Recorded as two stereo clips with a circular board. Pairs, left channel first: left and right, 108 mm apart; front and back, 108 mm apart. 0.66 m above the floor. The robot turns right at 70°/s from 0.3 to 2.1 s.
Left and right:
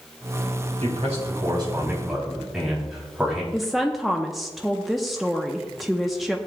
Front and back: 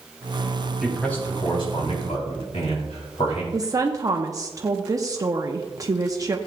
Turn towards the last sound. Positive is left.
turn(degrees=180)